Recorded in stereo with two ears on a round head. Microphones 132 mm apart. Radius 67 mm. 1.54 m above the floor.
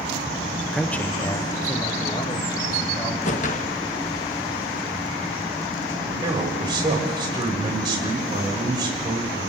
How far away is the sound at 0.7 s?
About 0.7 m.